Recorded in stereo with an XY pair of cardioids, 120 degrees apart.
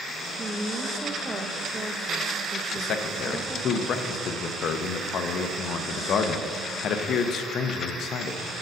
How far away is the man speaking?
About 0.6 m.